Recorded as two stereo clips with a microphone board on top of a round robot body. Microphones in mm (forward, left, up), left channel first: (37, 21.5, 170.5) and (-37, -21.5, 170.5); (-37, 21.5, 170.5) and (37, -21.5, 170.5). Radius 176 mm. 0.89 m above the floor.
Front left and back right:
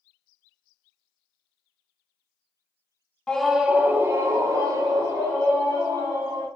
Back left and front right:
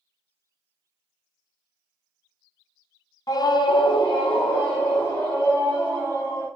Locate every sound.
3.3 s a scream: 110° left, 0.6 m; by 6.5 s 175° left, 2 m